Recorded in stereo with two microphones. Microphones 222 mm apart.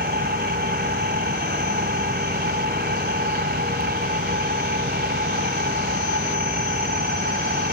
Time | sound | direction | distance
0.0 | an engine running | 45° right (ahead or behind) | 1.3 m